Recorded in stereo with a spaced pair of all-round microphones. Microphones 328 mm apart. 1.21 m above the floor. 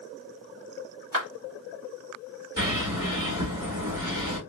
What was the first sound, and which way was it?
A clap, 90° right.